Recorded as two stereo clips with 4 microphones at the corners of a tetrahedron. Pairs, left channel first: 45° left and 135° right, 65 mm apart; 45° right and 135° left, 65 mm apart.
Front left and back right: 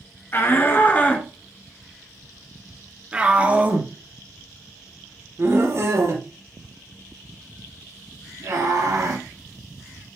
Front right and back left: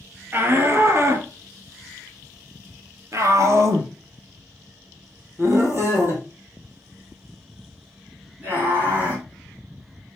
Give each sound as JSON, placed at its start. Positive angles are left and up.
{"t": 0.3, "sound": "a shout", "azimuth_deg": 85, "distance_m": 1.9}